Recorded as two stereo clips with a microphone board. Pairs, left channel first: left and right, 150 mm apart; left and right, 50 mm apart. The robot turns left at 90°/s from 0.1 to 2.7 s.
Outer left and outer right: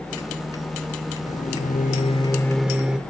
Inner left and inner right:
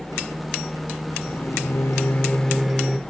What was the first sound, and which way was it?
A microwave, 125° left.